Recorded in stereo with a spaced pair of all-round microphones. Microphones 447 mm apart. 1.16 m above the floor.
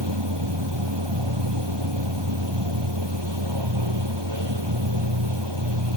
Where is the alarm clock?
I don't hear an alarm clock.